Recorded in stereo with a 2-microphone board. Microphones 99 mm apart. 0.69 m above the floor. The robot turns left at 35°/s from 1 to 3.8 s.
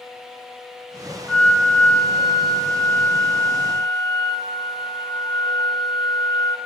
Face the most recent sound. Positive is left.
turn(degrees=75)